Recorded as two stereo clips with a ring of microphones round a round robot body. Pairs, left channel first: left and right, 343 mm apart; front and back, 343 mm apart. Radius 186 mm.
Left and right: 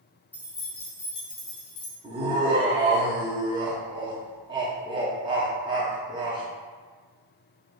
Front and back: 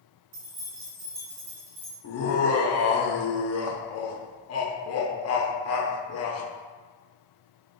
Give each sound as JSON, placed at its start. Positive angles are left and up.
{"t": 0.3, "sound": "keys jangling", "azimuth_deg": 175, "distance_m": 1.3}
{"t": 2.0, "sound": "laughter", "azimuth_deg": -20, "distance_m": 0.7}